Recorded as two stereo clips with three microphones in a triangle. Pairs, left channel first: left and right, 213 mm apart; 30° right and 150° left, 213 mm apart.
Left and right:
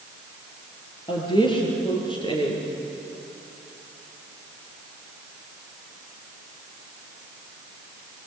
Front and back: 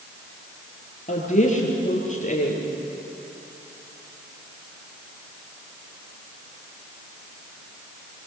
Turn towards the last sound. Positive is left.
turn(degrees=25)